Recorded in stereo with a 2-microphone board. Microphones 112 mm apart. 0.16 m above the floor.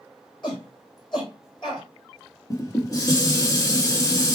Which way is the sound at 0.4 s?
45° left (ahead or behind).